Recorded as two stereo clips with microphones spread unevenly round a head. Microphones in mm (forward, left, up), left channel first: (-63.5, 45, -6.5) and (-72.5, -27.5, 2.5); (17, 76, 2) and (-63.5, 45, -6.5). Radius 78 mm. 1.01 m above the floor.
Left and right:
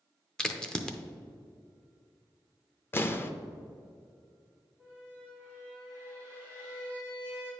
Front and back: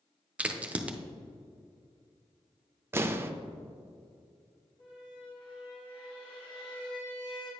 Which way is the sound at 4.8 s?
Straight ahead.